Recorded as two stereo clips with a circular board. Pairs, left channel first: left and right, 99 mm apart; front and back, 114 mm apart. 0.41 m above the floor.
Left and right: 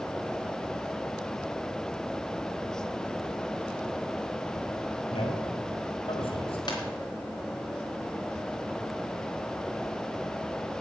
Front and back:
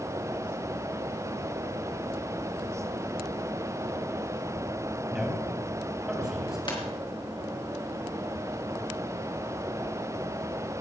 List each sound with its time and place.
5.1 s a man speaking: 95° left, 3 m
6.7 s a ringtone: 45° left, 3.5 m